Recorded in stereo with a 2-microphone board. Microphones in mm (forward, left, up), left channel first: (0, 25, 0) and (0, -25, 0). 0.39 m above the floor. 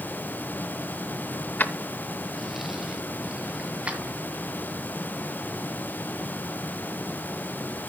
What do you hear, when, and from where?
1.6 s keys jangling: 40° left (ahead or behind), 0.9 m; by 4.2 s 25° right (ahead or behind), 2.5 m